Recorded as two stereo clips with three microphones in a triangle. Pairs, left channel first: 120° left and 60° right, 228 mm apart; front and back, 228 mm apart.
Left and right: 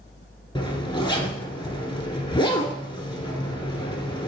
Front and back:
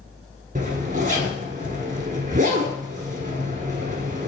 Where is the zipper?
175° left, 1.2 m.